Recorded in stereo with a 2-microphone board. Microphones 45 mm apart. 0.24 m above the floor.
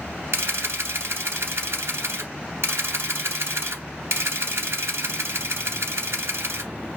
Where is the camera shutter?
70° right (ahead or behind), 0.9 m.